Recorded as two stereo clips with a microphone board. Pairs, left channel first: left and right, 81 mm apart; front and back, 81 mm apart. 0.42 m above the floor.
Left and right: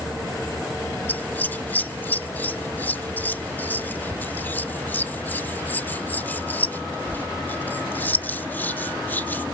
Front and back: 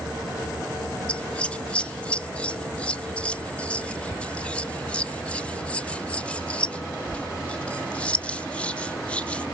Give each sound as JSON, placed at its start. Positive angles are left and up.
{"t": 1.1, "sound": "scissors", "azimuth_deg": 55, "distance_m": 0.5}